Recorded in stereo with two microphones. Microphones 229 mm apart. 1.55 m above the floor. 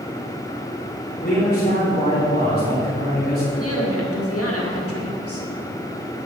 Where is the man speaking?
40° left (ahead or behind), 4 m.